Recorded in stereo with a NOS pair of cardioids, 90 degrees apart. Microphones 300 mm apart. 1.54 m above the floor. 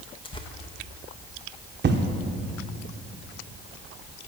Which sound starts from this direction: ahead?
Tearing paper, at 0.2 s.